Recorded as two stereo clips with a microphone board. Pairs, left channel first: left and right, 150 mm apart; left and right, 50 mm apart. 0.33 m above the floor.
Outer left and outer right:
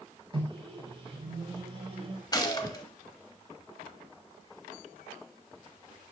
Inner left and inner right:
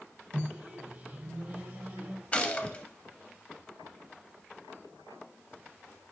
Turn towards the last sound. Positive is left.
turn(degrees=25)  # may be behind; listen again after turning